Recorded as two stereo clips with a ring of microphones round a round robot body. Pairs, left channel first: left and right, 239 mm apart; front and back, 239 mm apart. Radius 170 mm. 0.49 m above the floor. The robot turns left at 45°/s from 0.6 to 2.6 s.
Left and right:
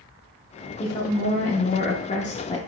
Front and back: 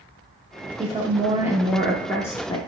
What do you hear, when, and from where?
0.8 s a woman speaking: 135° left, 0.8 m; by 2.6 s 55° left, 0.8 m